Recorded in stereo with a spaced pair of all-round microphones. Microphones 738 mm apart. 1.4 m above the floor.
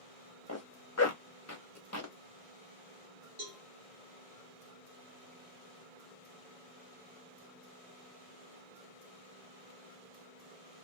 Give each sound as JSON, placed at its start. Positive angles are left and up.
{"t": 0.5, "sound": "a zipper", "side_deg": 20, "distance_m": 0.8}
{"t": 3.4, "sound": "a cowbell", "side_deg": -80, "distance_m": 1.6}